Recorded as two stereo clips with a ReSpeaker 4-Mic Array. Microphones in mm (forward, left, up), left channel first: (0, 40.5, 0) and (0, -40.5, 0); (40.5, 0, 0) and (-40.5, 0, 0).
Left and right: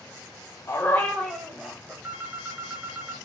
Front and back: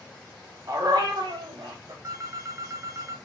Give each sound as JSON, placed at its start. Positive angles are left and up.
{"t": 0.7, "sound": "a dog barking", "azimuth_deg": 140, "distance_m": 0.7}
{"t": 2.0, "sound": "a phone ringing", "azimuth_deg": -150, "distance_m": 0.5}